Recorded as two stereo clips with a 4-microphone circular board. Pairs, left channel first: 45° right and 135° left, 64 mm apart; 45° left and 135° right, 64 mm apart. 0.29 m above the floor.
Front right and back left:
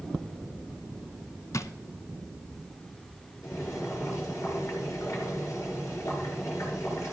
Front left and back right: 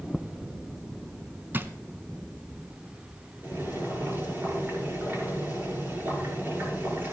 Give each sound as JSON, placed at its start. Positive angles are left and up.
{"t": 1.5, "sound": "a drawer", "azimuth_deg": -80, "distance_m": 0.8}
{"t": 3.4, "sound": "boiling", "azimuth_deg": -85, "distance_m": 5.5}